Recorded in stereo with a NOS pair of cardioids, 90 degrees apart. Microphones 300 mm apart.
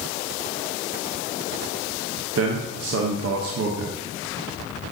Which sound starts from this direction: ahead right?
A man speaking, at 2.4 s.